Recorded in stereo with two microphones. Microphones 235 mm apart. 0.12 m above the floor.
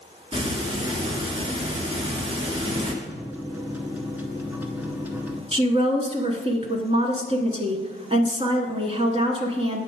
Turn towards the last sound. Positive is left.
turn(degrees=-25)  # may be behind; listen again after turning